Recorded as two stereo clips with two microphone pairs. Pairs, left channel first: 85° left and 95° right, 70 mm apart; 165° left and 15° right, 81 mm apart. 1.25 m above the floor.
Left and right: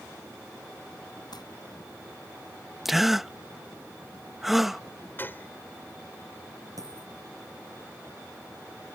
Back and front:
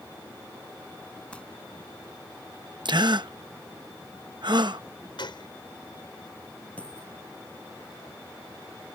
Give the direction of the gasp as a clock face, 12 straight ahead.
12 o'clock.